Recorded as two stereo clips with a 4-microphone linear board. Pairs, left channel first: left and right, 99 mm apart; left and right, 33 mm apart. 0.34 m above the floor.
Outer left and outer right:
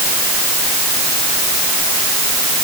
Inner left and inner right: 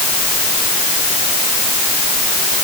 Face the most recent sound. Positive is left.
No sound to turn to.